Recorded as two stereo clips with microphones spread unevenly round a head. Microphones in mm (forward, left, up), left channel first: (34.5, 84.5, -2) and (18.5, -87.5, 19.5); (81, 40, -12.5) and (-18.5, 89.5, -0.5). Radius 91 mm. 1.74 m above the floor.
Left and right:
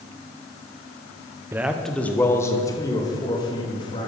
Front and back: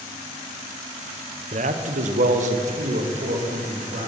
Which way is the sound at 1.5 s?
170° right.